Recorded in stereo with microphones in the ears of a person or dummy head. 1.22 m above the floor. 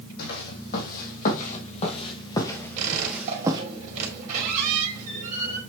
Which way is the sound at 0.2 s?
60° left (ahead or behind).